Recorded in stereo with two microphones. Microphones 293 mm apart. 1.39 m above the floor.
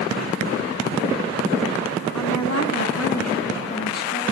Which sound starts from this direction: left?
A woman speaking, at 2.1 s.